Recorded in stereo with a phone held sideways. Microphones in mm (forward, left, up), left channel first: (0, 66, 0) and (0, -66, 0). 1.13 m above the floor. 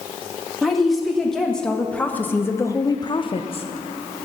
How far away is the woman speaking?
About 1.9 m.